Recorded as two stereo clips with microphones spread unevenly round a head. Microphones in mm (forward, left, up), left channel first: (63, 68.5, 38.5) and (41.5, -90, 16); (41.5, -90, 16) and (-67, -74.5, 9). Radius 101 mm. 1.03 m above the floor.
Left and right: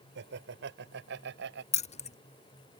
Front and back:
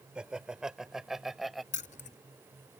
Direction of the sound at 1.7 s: 35° left.